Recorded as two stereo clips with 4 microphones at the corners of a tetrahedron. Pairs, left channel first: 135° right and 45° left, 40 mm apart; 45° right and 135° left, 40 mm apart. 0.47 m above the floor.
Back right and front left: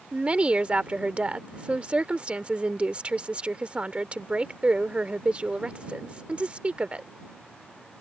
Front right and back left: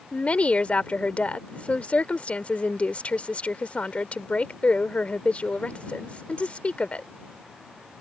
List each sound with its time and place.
0.1 s a woman speaking: 5° right